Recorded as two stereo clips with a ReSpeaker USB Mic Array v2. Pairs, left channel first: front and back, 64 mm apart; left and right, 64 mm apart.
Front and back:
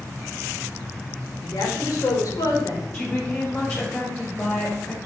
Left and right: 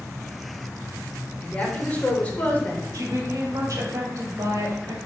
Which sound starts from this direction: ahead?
A woman speaking, at 1.4 s.